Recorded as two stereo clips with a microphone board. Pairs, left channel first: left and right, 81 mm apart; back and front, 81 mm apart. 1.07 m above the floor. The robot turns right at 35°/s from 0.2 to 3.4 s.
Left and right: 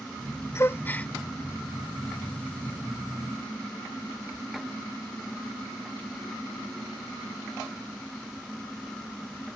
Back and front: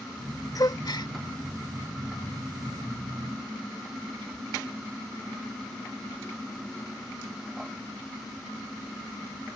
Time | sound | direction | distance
0.6 | a gasp | 145° left | ?